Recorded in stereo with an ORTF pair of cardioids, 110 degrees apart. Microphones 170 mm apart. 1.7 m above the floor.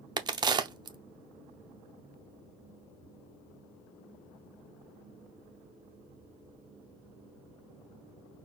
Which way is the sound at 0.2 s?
25° right.